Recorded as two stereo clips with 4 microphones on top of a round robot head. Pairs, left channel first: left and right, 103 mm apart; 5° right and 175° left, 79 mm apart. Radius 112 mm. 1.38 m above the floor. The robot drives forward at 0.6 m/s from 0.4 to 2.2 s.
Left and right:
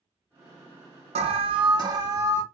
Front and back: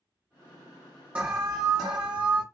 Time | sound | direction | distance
1.1 | an alarm | 110° right | 0.5 m